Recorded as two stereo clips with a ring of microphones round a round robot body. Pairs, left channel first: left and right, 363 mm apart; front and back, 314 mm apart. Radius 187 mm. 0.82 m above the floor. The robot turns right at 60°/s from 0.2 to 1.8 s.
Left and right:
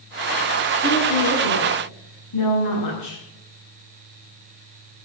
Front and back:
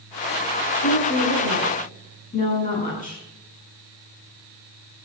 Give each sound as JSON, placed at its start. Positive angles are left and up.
{"t": 0.8, "sound": "a woman speaking", "azimuth_deg": 5, "distance_m": 8.5}